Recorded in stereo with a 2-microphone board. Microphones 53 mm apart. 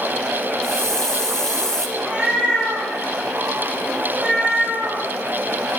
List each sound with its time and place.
0.6 s a hiss: 10° left (ahead or behind), 0.7 m
2.0 s a cat meowing: 25° right (ahead or behind), 5.5 m